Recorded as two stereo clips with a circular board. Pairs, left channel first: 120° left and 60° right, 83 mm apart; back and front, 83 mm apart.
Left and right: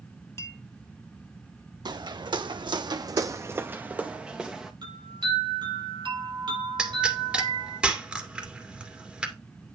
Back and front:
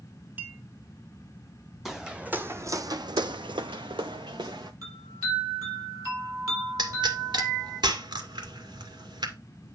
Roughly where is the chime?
Ahead right.